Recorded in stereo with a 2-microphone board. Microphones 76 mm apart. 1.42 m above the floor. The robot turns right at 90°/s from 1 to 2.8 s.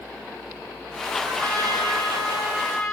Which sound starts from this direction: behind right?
A trumpet, at 1.2 s.